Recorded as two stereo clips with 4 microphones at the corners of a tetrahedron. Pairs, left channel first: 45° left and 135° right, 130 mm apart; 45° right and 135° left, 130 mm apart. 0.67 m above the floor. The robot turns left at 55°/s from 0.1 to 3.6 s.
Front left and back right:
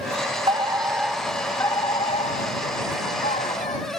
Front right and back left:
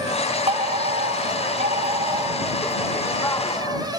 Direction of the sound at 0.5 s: 175° left.